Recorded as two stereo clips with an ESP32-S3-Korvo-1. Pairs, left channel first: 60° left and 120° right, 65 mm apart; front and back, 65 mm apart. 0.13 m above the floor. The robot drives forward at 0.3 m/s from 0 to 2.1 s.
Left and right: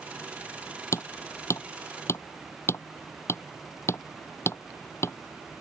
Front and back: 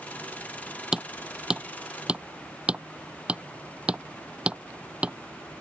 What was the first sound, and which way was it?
Hammering, 100° left.